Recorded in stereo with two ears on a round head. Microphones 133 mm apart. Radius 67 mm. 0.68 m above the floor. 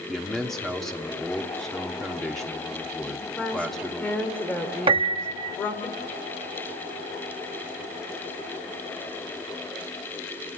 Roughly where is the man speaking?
Centre.